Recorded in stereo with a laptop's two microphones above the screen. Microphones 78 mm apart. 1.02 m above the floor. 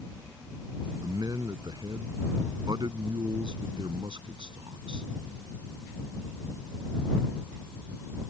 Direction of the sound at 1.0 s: 55° right (ahead or behind).